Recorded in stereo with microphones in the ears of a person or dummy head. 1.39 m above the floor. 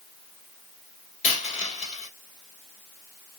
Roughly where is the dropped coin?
Left.